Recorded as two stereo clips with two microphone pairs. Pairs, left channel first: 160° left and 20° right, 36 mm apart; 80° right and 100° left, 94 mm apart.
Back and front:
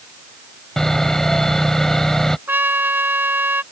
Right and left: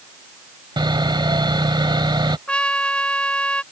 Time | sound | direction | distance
0.8 | sawing | 90° left | ?
2.5 | a trumpet | straight ahead | ?